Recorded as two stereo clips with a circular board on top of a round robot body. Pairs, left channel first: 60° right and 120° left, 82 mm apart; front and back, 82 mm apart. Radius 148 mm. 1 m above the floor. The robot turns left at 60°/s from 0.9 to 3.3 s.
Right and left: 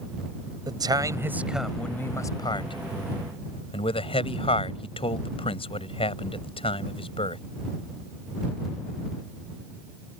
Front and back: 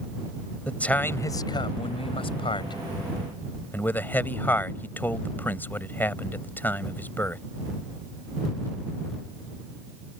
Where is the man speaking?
75° left; by 7.4 s 70° right.